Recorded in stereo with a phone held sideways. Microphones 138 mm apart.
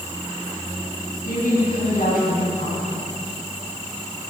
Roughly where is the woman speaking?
Left.